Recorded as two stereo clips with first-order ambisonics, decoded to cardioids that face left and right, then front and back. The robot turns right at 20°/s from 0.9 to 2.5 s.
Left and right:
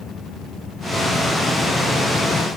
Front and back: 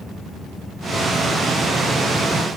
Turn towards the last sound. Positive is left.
No sound to turn to.